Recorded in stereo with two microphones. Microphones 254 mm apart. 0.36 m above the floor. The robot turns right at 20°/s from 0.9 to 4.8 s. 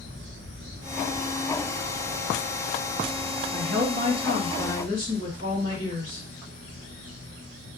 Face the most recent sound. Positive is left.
turn(degrees=-55)  # may be behind; listen again after turning